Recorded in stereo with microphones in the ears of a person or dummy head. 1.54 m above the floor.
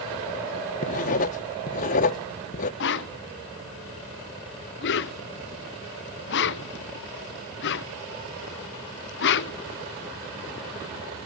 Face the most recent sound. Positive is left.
turn(degrees=65)  # may be behind; listen again after turning